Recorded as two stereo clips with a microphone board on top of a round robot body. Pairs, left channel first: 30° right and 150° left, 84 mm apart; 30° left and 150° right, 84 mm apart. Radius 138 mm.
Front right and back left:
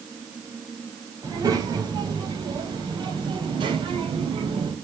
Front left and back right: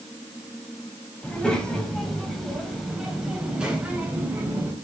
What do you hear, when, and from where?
1.2 s a child speaking: 110° left, 4 m; by 4.7 s 145° left, 4 m